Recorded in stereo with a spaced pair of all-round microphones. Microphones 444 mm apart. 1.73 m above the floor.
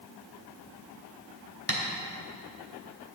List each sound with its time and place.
1.7 s tapping: 30° left (ahead or behind), 2.5 m